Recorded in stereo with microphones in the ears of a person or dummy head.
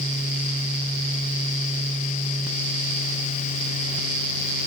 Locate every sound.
Only background noise.